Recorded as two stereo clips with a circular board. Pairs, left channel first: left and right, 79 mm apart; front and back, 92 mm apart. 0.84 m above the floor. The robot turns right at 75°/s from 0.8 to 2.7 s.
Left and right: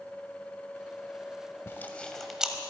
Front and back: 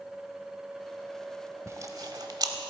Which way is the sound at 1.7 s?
135° left.